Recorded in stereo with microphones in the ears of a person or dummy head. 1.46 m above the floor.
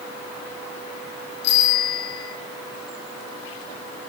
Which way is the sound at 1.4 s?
65° left (ahead or behind).